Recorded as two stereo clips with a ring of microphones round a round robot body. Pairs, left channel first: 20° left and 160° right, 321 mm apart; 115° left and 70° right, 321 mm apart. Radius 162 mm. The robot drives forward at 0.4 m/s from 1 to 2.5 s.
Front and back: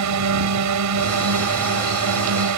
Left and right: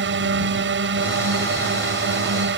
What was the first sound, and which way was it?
A drone, 120° right.